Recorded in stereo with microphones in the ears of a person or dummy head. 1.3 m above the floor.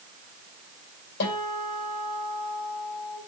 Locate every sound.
1.2 s a guitar: 55° left (ahead or behind), 6.5 m